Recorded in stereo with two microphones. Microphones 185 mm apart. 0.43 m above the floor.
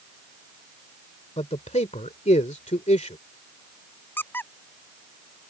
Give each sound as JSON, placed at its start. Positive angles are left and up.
{"t": 1.4, "sound": "a man speaking", "side_deg": 35}
{"t": 4.2, "sound": "a squeak", "side_deg": 10}